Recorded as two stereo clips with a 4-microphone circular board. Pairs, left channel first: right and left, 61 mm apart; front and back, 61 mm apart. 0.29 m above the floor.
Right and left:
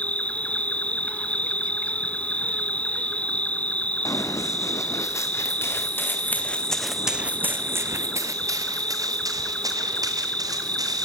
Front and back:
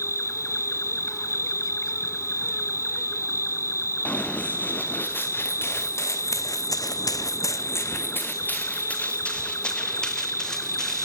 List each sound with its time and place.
0.0 s an insect: 25° right, 0.8 m
4.0 s running footsteps: 65° right, 3.5 m; by 11.1 s 80° left, 4.5 m